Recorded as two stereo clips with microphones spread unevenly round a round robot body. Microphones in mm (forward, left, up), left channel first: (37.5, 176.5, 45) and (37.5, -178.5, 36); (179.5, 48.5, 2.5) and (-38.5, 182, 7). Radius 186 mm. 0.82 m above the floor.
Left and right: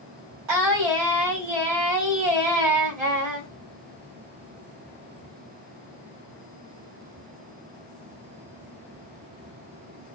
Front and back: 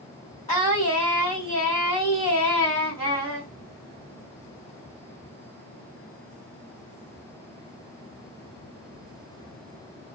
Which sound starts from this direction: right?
Singing, at 0.5 s.